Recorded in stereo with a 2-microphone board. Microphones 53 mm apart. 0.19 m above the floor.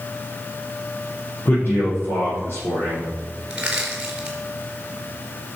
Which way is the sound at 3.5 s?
15° right (ahead or behind).